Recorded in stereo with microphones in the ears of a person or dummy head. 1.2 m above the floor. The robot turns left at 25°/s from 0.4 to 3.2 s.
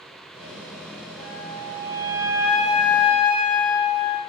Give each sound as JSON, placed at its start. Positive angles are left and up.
{"t": 1.2, "sound": "a flute", "side_deg": 5, "distance_m": 0.7}